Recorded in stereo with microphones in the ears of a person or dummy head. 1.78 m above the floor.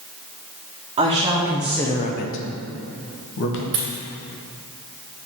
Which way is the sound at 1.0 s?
25° right (ahead or behind).